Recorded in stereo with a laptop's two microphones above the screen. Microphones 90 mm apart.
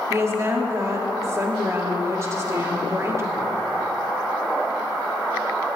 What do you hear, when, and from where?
0.1 s a woman speaking: 35° right (ahead or behind), 2.5 m